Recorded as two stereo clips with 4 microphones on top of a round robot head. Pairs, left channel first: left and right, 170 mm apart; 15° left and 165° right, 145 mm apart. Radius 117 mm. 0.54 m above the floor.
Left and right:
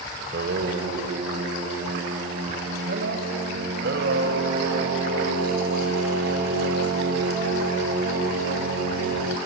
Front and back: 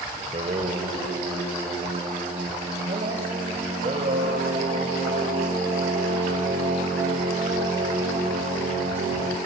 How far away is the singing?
About 1.8 m.